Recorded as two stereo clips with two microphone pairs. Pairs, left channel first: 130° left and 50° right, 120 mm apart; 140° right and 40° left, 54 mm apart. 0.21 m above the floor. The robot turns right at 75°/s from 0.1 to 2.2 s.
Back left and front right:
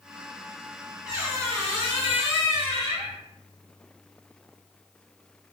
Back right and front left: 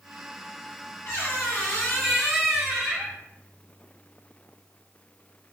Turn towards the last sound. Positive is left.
turn(degrees=-45)